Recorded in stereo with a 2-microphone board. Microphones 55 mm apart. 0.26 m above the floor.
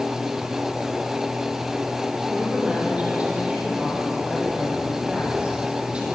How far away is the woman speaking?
About 9.5 m.